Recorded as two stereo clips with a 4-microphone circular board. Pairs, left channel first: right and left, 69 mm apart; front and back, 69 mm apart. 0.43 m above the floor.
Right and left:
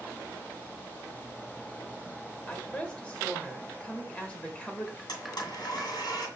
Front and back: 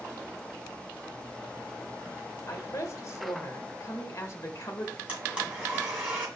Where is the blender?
105° right, 2 m.